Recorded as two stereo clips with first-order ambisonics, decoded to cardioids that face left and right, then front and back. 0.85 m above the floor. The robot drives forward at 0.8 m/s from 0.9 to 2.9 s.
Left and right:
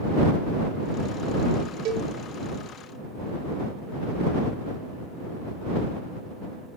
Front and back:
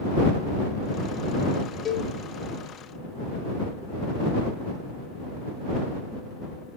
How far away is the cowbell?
About 1.6 m.